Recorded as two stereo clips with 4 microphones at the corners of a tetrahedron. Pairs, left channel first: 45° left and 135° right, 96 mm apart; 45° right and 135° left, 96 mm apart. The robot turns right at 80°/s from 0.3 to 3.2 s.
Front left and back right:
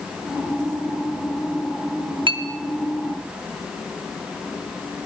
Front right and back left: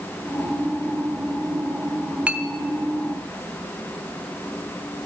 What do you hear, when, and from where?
2.3 s a clink: 150° right, 0.5 m; by 2.5 s 135° right, 0.5 m